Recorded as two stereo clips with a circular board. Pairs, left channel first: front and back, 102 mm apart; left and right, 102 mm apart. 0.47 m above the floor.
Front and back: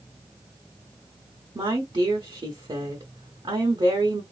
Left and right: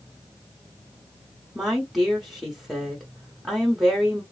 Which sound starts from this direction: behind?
A woman speaking, at 1.6 s.